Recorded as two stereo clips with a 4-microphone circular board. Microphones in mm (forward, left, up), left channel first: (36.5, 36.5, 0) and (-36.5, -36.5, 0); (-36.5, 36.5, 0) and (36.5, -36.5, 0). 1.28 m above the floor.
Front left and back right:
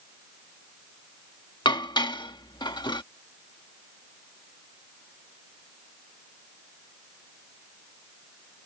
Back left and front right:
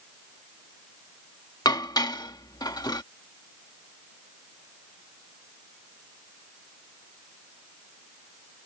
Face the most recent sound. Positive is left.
turn(degrees=85)